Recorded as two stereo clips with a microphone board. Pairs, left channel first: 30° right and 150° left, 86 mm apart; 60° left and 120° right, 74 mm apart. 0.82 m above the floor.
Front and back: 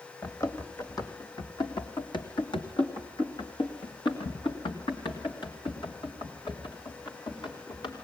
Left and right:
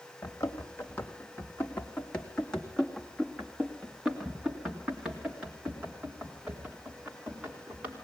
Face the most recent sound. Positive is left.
turn(degrees=-55)